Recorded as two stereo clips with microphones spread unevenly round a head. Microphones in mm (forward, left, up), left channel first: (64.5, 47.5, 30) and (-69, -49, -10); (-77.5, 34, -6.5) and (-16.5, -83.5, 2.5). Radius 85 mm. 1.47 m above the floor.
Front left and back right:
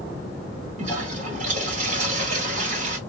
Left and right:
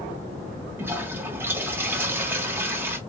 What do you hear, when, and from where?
0.8 s a toilet flushing: 115° right, 1.3 m